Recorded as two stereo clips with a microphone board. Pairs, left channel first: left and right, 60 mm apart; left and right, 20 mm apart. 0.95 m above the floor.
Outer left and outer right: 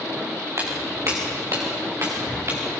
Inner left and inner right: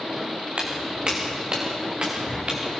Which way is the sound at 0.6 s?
60° right (ahead or behind).